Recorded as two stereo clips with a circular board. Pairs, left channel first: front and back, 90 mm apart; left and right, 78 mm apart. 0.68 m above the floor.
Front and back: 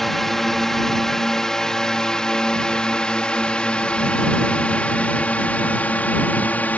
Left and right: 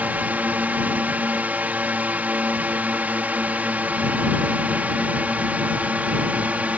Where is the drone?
85° right; by 6.8 s 45° right.